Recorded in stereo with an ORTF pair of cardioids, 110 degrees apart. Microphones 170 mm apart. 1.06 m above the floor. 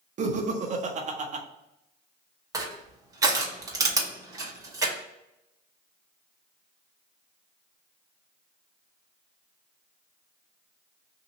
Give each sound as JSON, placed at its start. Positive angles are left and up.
{"t": 0.2, "sound": "laughter", "azimuth_deg": -45, "distance_m": 1.0}
{"t": 2.5, "sound": "crushing", "azimuth_deg": -20, "distance_m": 1.1}